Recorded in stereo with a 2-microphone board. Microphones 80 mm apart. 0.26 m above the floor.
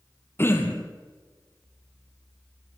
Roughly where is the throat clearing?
Left.